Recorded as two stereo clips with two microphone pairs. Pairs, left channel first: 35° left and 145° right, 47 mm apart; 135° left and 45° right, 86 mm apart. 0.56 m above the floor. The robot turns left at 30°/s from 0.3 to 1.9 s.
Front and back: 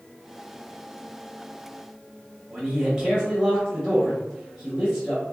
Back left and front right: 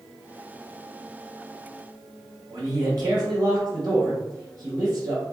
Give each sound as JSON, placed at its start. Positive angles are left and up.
{"t": 2.5, "sound": "a man speaking", "azimuth_deg": -65, "distance_m": 1.0}